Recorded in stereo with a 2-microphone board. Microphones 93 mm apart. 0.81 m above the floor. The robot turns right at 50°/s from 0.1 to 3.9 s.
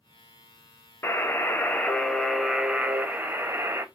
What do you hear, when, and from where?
1.0 s a buzzer: 115° left, 0.6 m; by 3.9 s 105° right, 0.6 m